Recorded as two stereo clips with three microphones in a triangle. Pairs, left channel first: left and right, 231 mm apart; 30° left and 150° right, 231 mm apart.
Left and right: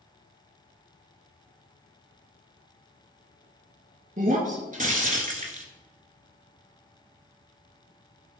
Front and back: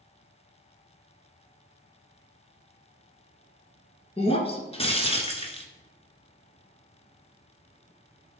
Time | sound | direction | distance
4.2 | breaking glass | 35° right | 1.6 m